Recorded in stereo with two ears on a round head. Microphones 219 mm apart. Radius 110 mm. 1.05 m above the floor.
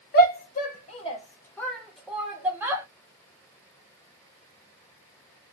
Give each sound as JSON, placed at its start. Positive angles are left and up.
{"t": 0.1, "sound": "a shout", "side_deg": 40, "distance_m": 0.8}